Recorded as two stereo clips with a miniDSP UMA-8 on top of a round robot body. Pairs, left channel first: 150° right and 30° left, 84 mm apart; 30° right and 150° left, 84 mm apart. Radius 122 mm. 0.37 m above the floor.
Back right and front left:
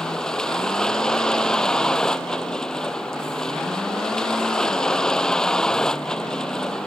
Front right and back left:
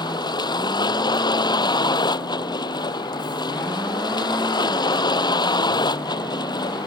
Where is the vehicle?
70° right.